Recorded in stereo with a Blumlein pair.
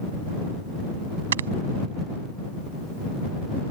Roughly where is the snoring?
Ahead right.